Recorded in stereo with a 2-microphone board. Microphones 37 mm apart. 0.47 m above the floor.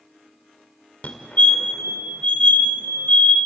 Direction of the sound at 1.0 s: 40° left (ahead or behind).